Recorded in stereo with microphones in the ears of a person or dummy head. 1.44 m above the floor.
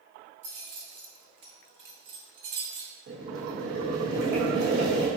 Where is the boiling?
55° right (ahead or behind), 1.1 m.